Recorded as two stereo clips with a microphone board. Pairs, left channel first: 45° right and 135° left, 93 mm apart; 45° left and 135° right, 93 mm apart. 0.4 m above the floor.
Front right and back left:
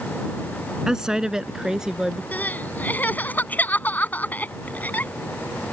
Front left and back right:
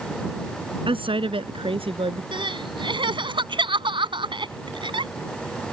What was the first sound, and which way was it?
A woman speaking, 140° right.